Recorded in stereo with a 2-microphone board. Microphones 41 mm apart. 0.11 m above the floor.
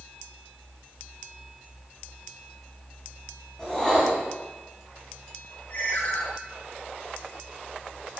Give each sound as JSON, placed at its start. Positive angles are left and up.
{"t": 3.6, "sound": "a whoosh", "side_deg": 20, "distance_m": 7.0}
{"t": 5.7, "sound": "a ringtone", "side_deg": 50, "distance_m": 6.0}